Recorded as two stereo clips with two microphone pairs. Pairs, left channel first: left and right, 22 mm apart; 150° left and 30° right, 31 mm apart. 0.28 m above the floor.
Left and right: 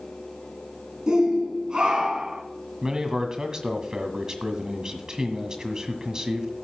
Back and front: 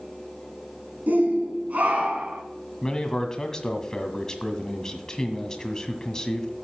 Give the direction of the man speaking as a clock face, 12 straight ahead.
5 o'clock.